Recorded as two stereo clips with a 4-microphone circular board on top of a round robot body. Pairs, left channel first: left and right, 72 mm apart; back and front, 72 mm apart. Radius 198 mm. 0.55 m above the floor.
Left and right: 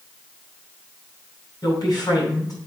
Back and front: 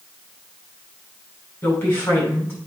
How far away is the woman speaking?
About 5 m.